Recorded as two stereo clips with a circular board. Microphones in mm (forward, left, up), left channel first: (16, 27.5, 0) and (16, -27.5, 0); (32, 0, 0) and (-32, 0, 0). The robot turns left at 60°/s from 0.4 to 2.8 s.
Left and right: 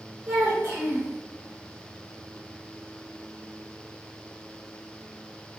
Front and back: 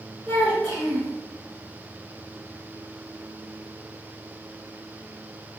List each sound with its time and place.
0.3 s a child speaking: 65° right, 1.1 m; by 1.1 s 105° right, 1.1 m